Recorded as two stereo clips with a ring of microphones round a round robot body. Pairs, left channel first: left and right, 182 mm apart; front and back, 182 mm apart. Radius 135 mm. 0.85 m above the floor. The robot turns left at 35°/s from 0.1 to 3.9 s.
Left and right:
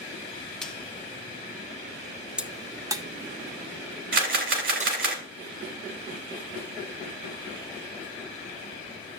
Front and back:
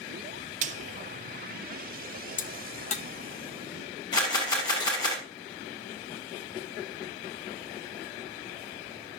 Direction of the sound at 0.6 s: 175° left.